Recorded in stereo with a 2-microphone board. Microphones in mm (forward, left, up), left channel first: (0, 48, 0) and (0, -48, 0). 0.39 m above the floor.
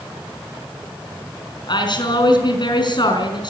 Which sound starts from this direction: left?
A woman speaking, at 1.7 s.